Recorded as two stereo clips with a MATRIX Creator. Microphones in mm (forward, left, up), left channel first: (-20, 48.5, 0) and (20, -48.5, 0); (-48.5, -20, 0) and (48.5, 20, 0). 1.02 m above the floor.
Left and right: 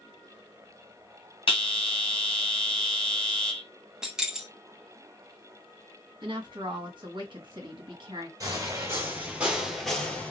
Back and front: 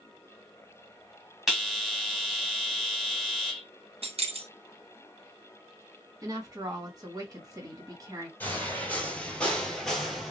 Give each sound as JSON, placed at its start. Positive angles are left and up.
{"t": 1.5, "sound": "a bell", "azimuth_deg": 110, "distance_m": 1.3}
{"t": 4.0, "sound": "keys jangling", "azimuth_deg": 15, "distance_m": 0.6}
{"t": 6.2, "sound": "a woman speaking", "azimuth_deg": -30, "distance_m": 1.4}
{"t": 8.4, "sound": "footsteps", "azimuth_deg": -95, "distance_m": 1.2}